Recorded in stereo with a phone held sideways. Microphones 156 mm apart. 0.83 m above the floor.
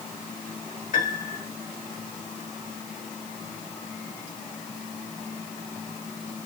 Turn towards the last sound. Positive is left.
turn(degrees=65)  # may be behind; listen again after turning